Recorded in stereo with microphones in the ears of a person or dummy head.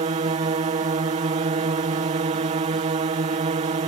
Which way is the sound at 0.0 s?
35° right (ahead or behind).